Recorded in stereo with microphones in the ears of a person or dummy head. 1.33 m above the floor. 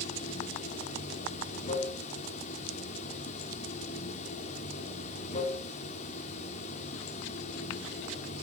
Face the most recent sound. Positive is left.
turn(degrees=45)  # may be behind; listen again after turning